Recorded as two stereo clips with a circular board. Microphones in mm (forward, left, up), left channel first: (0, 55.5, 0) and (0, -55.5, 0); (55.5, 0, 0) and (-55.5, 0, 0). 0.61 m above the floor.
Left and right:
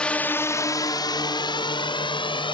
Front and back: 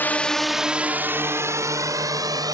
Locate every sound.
0.0 s a drone: 25° left; by 2.5 s 125° left